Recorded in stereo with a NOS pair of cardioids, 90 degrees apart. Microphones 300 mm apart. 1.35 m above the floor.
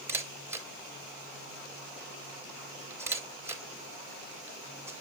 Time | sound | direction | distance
0.1 | a camera shutter | 10° right | 4 m